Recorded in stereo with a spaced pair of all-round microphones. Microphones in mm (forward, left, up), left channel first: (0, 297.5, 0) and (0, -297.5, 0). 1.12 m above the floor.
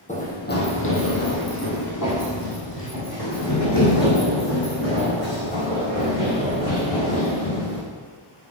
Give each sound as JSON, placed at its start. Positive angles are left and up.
{"t": 0.1, "sound": "running footsteps", "side_deg": 15, "distance_m": 2.5}